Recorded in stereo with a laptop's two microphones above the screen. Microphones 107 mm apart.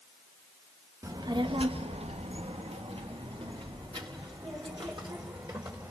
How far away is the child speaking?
About 0.9 m.